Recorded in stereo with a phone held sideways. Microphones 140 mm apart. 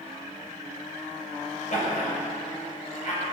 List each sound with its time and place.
1.7 s laughter: 55° left (ahead or behind), 6 m; by 3.3 s 50° left (ahead or behind), 7.5 m